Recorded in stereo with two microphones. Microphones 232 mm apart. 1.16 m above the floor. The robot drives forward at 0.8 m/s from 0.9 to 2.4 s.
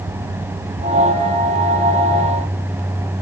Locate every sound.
Only background noise.